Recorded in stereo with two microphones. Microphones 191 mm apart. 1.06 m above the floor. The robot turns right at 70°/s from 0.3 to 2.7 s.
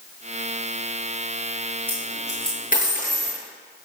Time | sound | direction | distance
1.9 | a dropped coin | 10° right (ahead or behind) | 8 m